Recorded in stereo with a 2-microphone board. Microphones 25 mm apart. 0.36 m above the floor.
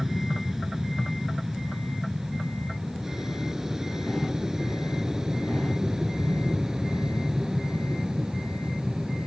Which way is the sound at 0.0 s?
10° right (ahead or behind).